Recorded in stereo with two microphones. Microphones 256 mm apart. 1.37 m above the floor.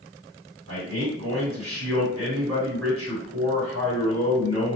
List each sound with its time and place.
0.7 s a man speaking: 60° right (ahead or behind), 1.8 m